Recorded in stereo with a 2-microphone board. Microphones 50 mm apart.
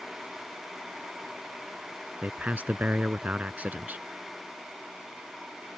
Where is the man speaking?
30° right (ahead or behind).